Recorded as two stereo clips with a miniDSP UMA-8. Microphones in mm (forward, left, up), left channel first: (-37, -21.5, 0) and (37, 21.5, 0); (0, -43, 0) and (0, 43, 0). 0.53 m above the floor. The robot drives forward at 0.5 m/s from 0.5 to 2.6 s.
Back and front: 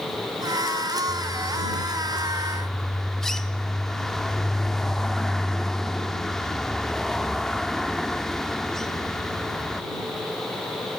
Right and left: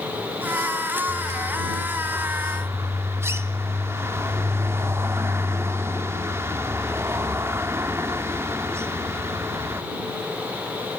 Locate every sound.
1.1 s a bird: 55° left, 1.1 m; by 9.8 s 125° left, 1.1 m